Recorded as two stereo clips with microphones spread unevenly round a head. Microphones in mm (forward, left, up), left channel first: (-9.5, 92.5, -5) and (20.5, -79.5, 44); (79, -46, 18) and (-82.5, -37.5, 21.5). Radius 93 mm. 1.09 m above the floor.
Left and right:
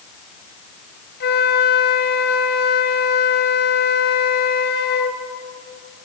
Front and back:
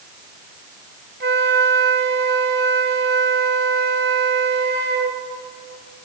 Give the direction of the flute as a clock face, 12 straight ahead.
7 o'clock.